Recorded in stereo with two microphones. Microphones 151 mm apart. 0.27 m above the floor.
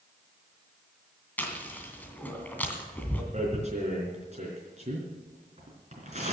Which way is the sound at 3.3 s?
50° right (ahead or behind).